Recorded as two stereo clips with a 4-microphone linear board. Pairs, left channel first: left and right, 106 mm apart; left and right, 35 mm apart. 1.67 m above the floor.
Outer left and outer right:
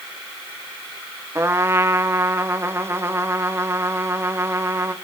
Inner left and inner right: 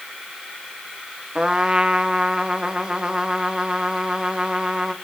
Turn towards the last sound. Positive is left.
turn(degrees=-25)  # may be behind; listen again after turning